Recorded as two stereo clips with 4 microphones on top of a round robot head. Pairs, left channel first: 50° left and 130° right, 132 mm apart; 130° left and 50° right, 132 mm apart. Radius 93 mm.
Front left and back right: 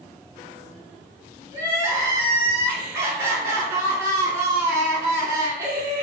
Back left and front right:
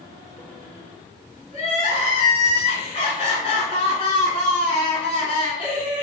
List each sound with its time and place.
1.5 s crying: 170° left, 1.6 m